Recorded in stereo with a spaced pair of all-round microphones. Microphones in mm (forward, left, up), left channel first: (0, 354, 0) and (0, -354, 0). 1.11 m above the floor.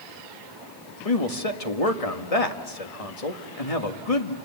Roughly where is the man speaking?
Left.